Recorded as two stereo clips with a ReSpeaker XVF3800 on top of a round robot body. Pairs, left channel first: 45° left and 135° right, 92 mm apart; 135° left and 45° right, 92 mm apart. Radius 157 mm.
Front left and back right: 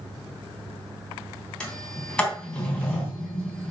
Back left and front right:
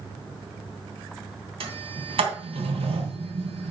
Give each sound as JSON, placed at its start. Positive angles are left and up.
{"t": 1.6, "sound": "a sliding door", "azimuth_deg": -35, "distance_m": 3.0}